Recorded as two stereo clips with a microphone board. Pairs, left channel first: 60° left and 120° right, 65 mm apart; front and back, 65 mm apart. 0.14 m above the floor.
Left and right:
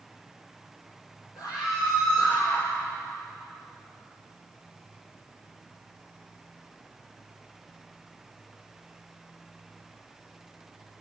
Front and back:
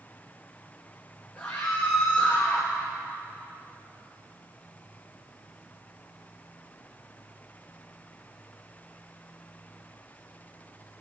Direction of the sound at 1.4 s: 75° left.